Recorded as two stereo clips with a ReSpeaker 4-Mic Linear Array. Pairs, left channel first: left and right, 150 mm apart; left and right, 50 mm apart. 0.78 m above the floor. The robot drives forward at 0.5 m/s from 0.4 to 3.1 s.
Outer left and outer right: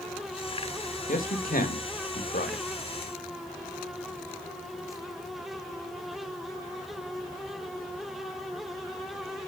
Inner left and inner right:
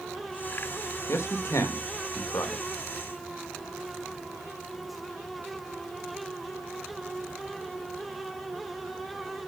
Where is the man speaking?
60° left (ahead or behind), 2 m; by 2.6 s 75° left (ahead or behind), 2.0 m.